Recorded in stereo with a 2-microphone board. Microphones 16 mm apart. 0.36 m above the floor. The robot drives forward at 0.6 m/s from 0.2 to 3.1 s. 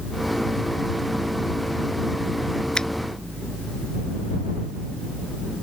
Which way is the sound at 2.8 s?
65° left (ahead or behind).